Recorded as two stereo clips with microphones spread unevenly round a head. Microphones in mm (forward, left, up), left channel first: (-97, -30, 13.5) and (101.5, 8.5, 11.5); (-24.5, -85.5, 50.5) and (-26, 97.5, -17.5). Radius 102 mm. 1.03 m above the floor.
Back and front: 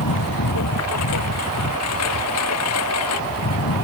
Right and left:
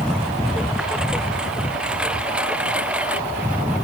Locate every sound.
0.0 s a lawn mower: straight behind; by 3.8 s 175° left